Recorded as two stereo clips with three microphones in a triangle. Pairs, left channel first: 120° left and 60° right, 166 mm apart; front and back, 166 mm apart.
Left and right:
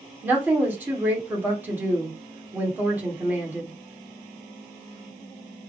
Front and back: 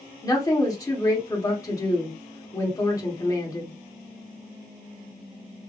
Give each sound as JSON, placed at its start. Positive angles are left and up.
{"t": 0.2, "sound": "a woman speaking", "azimuth_deg": -5, "distance_m": 1.4}